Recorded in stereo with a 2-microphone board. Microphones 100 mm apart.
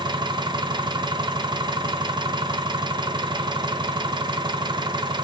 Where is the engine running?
50° right (ahead or behind), 0.7 m.